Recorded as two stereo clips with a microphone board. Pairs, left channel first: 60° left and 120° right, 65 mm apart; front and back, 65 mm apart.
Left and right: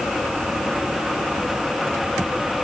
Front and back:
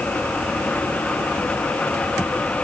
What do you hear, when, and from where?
Only background noise.